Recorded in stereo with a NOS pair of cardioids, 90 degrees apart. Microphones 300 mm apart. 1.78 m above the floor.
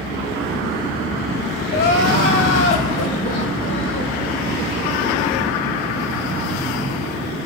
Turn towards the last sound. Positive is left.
turn(degrees=45)